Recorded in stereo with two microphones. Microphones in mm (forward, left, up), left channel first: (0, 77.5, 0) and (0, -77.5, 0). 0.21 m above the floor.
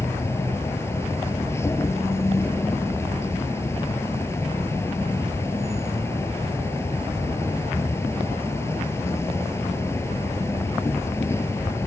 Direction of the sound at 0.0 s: 15° left (ahead or behind).